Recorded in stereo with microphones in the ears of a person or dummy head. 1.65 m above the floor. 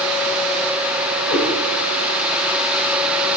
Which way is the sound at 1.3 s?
45° left (ahead or behind).